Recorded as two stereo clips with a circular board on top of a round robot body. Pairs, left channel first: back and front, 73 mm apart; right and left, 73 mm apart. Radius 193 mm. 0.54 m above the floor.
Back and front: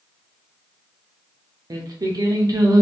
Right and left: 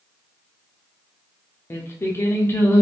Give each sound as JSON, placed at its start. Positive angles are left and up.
{"t": 1.7, "sound": "singing", "azimuth_deg": -35, "distance_m": 0.7}